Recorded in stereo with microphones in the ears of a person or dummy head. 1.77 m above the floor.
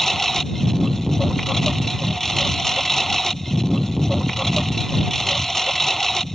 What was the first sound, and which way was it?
A lawn mower, centre (ahead or behind).